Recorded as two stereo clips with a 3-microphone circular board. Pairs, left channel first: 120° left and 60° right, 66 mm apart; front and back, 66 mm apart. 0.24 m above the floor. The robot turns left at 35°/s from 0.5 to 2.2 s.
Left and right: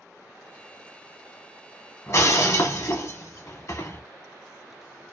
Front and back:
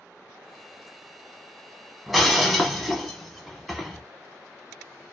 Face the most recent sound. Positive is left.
turn(degrees=90)